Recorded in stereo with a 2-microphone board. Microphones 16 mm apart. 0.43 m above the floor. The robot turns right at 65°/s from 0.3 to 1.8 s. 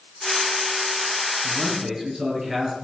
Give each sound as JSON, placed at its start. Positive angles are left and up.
{"t": 1.4, "sound": "a man speaking", "side_deg": -50, "distance_m": 9.0}